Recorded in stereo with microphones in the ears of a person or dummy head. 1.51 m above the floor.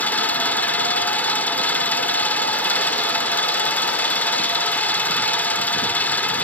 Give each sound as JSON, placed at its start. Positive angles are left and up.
{"t": 0.0, "sound": "an engine running", "side_deg": 10}